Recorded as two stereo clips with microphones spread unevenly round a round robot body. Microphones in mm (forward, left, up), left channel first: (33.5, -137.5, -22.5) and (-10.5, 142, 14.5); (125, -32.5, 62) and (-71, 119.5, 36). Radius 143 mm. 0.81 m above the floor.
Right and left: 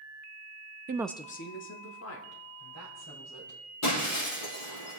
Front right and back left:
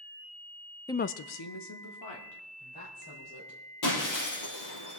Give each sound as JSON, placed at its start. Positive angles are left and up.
{"t": 0.9, "sound": "a woman speaking", "azimuth_deg": 45, "distance_m": 0.5}
{"t": 3.8, "sound": "breaking glass", "azimuth_deg": -40, "distance_m": 5.5}